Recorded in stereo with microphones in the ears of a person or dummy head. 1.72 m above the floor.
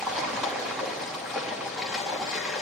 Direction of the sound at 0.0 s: Centre (ahead or behind).